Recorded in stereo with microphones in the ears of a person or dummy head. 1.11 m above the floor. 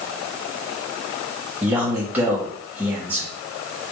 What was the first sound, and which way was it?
A man speaking, 10° right (ahead or behind).